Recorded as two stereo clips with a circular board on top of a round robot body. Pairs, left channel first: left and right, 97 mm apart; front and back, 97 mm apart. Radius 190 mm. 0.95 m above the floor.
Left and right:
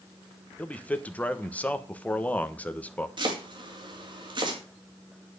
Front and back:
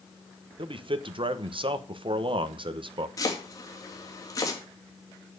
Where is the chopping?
55° right, 3 m.